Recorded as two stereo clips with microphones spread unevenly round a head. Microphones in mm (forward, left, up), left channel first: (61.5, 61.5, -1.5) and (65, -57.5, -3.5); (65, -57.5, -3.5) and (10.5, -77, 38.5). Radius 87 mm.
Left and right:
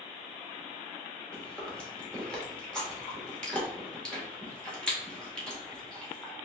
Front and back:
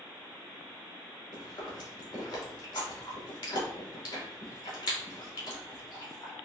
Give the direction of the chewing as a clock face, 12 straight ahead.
12 o'clock.